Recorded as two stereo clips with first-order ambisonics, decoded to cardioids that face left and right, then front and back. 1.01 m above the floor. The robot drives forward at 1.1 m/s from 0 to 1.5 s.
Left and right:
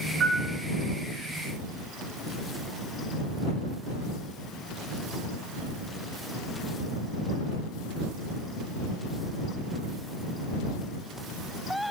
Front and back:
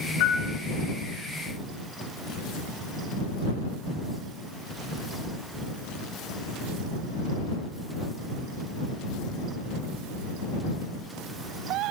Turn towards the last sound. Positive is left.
turn(degrees=-125)